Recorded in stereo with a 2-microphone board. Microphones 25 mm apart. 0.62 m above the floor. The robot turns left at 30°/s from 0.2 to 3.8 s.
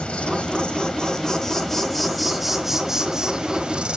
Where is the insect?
65° left, 1.6 m; by 4.0 s 45° right, 1.6 m.